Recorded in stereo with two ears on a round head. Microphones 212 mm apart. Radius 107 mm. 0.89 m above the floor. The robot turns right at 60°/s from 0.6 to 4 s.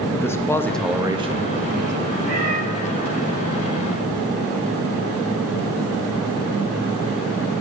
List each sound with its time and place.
0.1 s a man speaking: 165° left, 0.8 m; by 2.0 s 110° right, 0.8 m
2.2 s a cat meowing: 35° left (ahead or behind), 6 m; by 2.6 s 55° left (ahead or behind), 6 m